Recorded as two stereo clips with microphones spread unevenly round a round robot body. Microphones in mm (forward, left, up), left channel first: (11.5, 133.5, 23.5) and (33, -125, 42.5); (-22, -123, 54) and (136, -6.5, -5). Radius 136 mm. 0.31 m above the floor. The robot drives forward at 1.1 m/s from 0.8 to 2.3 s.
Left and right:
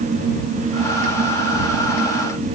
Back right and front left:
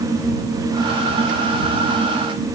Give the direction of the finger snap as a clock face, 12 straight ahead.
No finger snap in this recording.